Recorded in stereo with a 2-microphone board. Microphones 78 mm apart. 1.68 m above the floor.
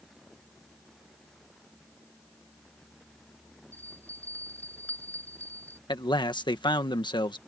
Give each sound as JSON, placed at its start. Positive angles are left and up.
{"t": 3.7, "sound": "a bell", "side_deg": 20}
{"t": 5.9, "sound": "a man speaking", "side_deg": 75}